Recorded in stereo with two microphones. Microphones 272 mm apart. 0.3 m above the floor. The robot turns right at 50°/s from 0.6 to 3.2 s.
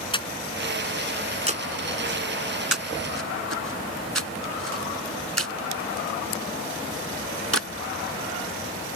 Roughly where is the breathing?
Centre.